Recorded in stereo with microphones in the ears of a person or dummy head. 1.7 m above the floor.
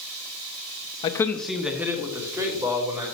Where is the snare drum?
No snare drum in this recording.